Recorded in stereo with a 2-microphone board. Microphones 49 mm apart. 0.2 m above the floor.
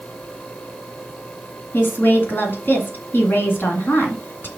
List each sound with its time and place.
1.7 s a woman speaking: 45° left (ahead or behind), 2 m